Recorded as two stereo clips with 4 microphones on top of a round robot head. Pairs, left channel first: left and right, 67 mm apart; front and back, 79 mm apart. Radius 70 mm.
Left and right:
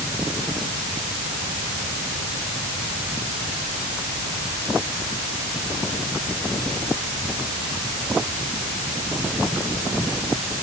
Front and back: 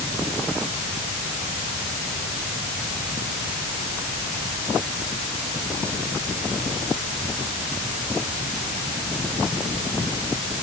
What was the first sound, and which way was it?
Only background noise.